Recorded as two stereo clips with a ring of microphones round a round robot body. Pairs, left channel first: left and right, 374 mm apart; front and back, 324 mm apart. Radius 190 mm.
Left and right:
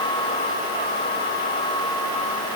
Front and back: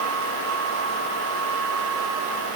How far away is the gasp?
I don't hear a gasp.